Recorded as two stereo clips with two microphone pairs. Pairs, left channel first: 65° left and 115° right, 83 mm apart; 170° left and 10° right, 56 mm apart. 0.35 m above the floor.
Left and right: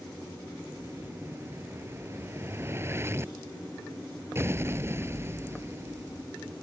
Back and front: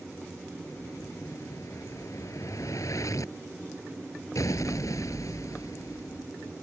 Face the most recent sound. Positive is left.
turn(degrees=-175)